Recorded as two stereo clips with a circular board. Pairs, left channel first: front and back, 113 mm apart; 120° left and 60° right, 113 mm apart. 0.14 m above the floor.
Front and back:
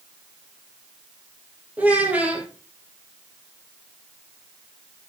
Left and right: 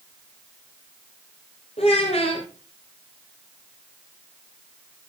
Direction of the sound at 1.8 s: 100° left.